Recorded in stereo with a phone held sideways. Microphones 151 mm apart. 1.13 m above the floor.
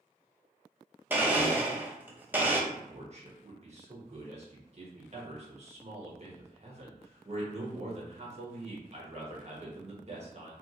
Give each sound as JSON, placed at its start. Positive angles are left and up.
{"t": 1.1, "sound": "a blender", "side_deg": -10, "distance_m": 0.7}
{"t": 2.7, "sound": "a man speaking", "side_deg": -45, "distance_m": 1.3}